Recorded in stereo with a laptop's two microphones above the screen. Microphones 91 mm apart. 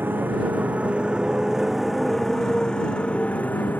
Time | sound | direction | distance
0.0 | a motorcycle | 20° right (ahead or behind) | ?